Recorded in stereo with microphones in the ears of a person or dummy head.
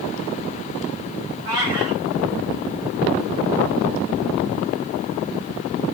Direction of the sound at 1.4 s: 25° right (ahead or behind).